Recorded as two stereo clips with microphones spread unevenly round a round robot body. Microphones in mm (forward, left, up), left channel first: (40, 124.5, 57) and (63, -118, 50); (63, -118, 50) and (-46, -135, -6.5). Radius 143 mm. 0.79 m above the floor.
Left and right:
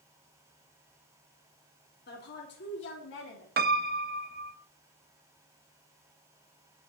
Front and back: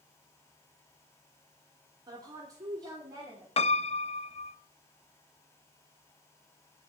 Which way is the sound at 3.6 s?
30° right.